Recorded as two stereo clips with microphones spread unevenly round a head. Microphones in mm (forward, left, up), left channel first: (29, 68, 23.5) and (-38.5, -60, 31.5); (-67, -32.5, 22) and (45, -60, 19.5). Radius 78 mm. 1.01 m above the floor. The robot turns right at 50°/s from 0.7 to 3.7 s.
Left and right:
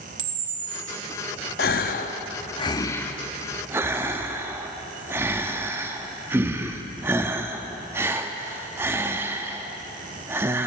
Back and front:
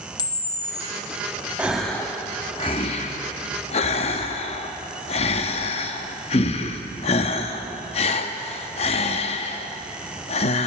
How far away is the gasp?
About 0.6 m.